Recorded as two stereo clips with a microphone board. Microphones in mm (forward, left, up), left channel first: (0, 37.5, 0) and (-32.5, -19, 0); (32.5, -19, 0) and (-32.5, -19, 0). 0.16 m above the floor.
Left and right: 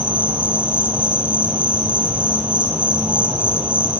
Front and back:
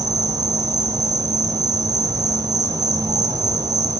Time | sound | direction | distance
0.0 | an insect | 165° left | 1.4 m